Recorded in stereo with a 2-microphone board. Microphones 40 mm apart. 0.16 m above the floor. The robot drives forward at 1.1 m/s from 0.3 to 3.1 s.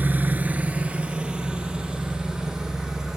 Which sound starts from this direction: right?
An engine running, at 0.0 s.